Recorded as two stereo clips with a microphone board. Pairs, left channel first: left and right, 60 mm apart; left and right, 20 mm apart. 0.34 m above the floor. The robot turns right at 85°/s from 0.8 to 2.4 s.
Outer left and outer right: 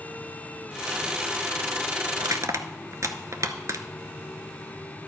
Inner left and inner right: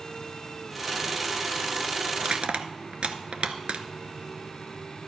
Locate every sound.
2.2 s crushing: 75° right (ahead or behind), 0.7 m; by 3.8 s 60° right (ahead or behind), 0.7 m